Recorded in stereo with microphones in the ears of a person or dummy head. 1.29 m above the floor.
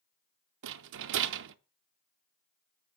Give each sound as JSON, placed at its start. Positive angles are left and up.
{"t": 0.6, "sound": "a rattle", "side_deg": -70, "distance_m": 0.7}